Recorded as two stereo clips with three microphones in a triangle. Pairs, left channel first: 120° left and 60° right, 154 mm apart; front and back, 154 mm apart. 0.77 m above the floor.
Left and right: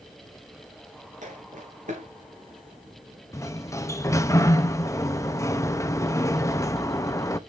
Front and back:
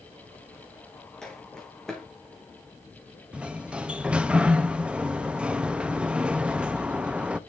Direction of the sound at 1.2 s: 85° right.